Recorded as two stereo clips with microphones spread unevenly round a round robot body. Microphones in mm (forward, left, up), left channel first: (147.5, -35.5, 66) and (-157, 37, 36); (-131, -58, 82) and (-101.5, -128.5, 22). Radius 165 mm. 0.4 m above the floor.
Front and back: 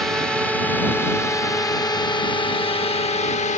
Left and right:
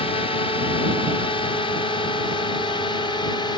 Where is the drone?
85° left; by 3.6 s 40° left.